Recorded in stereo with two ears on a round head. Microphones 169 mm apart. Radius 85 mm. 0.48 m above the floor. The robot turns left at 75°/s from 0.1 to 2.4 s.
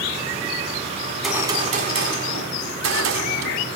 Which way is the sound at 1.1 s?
15° left.